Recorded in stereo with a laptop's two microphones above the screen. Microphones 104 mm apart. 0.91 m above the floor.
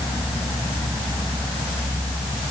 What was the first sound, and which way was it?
Only background noise.